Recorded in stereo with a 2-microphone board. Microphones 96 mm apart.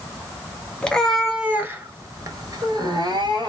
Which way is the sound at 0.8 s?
10° left (ahead or behind).